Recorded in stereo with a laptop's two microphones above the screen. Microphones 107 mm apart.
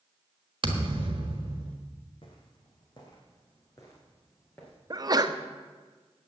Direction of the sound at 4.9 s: 40° right (ahead or behind).